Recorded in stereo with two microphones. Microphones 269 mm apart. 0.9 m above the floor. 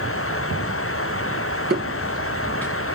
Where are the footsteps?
35° right (ahead or behind), 1.0 m; by 2.7 s 15° left (ahead or behind), 0.9 m.